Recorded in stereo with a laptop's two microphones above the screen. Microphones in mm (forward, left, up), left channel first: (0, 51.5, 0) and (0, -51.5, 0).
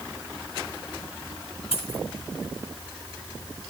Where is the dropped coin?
85° left, 5 m.